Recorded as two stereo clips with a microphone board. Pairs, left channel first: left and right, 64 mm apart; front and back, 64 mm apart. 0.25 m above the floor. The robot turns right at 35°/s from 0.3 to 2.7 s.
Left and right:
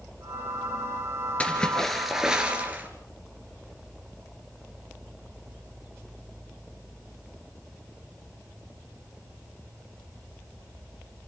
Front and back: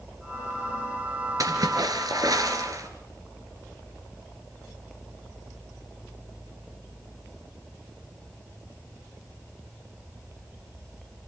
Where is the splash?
160° left, 2.5 m; by 2.9 s 155° right, 2.5 m.